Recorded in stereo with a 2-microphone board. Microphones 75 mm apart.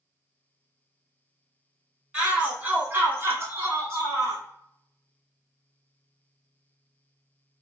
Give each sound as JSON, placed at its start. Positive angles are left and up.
{"t": 2.1, "sound": "a shout", "side_deg": -15, "distance_m": 1.4}